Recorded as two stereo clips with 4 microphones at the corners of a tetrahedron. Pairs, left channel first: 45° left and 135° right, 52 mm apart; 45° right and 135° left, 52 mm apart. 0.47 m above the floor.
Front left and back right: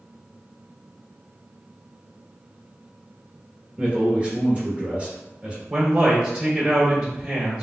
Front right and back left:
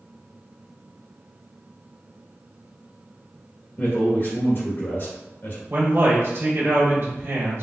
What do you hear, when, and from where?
3.8 s a man speaking: 75° right, 1.5 m
5.7 s a man speaking: straight behind, 1.3 m